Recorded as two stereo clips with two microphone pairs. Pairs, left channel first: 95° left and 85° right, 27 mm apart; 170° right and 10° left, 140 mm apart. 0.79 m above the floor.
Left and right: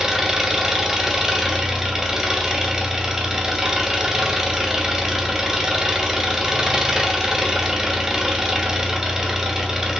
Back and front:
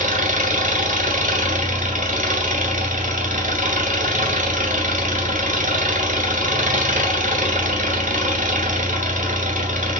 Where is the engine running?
10° right, 2.5 m.